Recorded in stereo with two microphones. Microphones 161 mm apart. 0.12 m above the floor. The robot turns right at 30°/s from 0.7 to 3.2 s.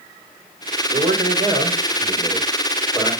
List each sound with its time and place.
0.9 s a man speaking: 55° right, 5.5 m; by 3.1 s 10° left, 5.5 m